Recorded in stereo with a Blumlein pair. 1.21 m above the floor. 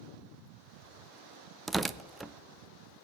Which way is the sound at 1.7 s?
10° right.